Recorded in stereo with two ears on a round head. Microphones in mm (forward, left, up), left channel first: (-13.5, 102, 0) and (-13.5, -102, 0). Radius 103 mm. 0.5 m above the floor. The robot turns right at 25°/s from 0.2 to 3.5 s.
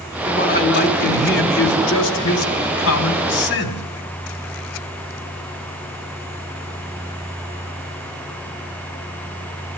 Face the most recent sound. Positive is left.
turn(degrees=120)